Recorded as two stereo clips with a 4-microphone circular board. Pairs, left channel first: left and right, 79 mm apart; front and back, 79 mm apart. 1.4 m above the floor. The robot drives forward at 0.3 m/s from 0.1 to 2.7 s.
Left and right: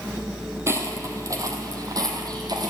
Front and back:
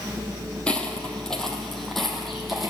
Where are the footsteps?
70° right, 1.7 m; by 2.7 s 90° right, 2.5 m.